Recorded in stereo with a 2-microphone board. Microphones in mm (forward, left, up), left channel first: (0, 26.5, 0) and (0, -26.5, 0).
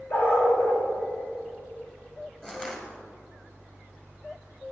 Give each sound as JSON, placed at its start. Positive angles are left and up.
{"t": 0.1, "sound": "a dog barking", "side_deg": 55, "distance_m": 7.0}
{"t": 2.4, "sound": "crushing", "side_deg": 15, "distance_m": 3.0}